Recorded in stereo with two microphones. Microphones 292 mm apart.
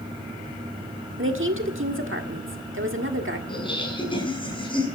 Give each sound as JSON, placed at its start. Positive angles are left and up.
{"t": 1.2, "sound": "a woman speaking", "side_deg": -45, "distance_m": 1.5}
{"t": 3.5, "sound": "laughter", "side_deg": 15, "distance_m": 6.5}